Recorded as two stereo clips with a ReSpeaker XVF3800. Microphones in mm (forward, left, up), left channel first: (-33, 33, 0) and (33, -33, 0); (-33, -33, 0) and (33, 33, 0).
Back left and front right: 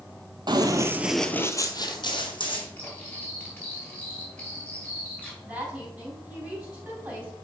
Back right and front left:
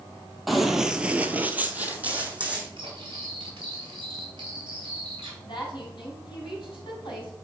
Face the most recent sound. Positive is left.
turn(degrees=-110)